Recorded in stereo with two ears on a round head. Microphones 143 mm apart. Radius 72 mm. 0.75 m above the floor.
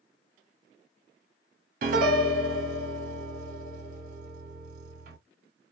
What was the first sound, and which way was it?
A piano, 55° right (ahead or behind).